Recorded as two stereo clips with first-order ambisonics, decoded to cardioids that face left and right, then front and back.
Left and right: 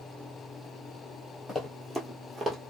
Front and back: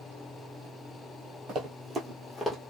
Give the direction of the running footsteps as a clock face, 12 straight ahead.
7 o'clock.